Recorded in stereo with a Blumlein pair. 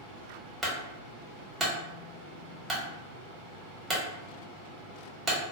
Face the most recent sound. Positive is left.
turn(degrees=-10)